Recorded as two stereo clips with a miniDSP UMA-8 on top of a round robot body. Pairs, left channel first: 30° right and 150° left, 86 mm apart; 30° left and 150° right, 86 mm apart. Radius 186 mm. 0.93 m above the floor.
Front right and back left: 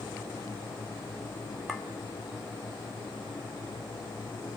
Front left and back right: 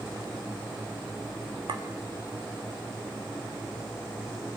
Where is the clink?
120° right, 2.5 m.